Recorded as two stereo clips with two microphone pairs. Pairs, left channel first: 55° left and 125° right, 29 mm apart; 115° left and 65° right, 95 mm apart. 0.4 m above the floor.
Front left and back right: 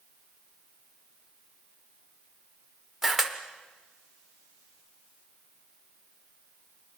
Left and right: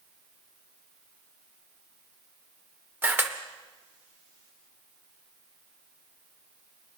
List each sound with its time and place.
3.0 s a camera shutter: 65° right, 0.7 m